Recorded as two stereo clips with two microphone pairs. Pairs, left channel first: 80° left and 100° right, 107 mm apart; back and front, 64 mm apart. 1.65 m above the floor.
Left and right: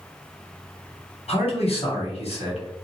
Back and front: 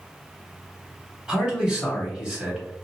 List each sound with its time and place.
1.3 s a man speaking: 80° left, 1.2 m